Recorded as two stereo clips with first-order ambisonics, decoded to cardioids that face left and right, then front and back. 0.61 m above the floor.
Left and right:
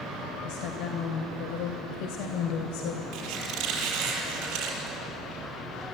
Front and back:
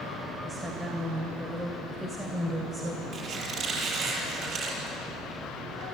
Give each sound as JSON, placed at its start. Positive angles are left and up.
{"t": 0.4, "sound": "a woman speaking", "azimuth_deg": 100, "distance_m": 2.5}
{"t": 3.1, "sound": "a squeak", "azimuth_deg": -125, "distance_m": 7.5}